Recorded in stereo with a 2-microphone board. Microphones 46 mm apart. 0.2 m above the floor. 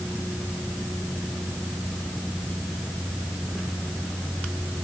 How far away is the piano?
I don't hear a piano.